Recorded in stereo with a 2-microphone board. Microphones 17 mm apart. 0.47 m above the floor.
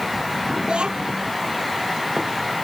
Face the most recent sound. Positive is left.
turn(degrees=-85)